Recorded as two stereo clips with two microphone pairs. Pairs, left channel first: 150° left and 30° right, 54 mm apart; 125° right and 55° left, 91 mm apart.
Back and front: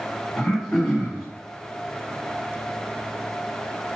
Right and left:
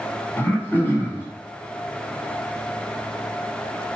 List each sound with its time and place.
0.4 s throat clearing: 130° right, 1.6 m